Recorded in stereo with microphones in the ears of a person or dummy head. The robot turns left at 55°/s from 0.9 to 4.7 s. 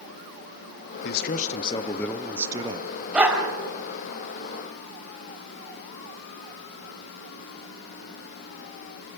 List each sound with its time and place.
1.0 s a man speaking: 65° left, 1.3 m; by 2.9 s 40° right, 1.3 m
3.1 s a dog barking: 5° right (ahead or behind), 3.5 m; by 3.5 s 25° right (ahead or behind), 3.5 m